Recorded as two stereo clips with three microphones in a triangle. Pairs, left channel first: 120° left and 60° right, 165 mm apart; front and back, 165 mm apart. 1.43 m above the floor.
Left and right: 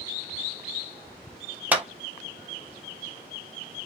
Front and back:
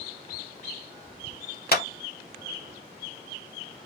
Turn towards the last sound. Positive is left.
turn(degrees=20)